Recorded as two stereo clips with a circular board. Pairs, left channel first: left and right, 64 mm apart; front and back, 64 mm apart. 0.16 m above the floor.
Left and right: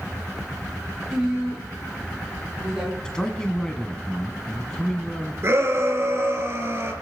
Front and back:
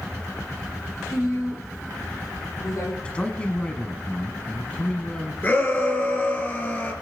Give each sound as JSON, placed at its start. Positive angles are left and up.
{"t": 1.1, "sound": "a woman speaking", "azimuth_deg": -15, "distance_m": 6.5}
{"t": 3.0, "sound": "a man speaking", "azimuth_deg": 30, "distance_m": 1.1}
{"t": 5.4, "sound": "a shout", "azimuth_deg": -50, "distance_m": 3.0}